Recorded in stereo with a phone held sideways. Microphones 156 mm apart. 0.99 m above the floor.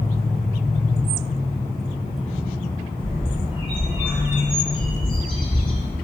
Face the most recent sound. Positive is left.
turn(degrees=30)  # may be behind; listen again after turning